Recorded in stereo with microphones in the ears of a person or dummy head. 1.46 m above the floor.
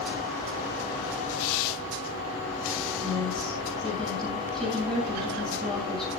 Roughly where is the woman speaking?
Centre.